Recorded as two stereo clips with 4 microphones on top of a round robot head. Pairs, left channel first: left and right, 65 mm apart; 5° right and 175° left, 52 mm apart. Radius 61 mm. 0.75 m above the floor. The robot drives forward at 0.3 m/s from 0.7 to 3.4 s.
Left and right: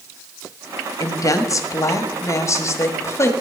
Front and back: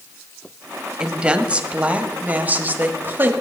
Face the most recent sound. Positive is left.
turn(degrees=130)